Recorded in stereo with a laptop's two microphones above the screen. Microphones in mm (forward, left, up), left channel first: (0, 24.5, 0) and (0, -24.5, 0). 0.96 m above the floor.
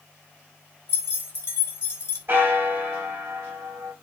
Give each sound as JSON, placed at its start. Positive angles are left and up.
{"t": 0.9, "sound": "keys jangling", "side_deg": 55, "distance_m": 1.3}
{"t": 2.3, "sound": "a bell", "side_deg": -55, "distance_m": 1.4}